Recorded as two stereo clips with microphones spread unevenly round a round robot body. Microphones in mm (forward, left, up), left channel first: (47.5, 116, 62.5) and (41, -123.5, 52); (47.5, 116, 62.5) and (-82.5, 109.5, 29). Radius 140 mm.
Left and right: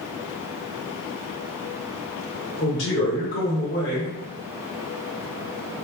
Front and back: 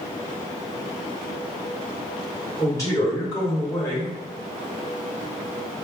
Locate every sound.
2.6 s a man speaking: 75° left, 2.0 m